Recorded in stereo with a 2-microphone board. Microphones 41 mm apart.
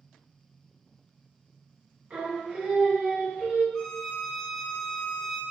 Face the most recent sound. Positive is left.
turn(degrees=15)  # may be behind; listen again after turning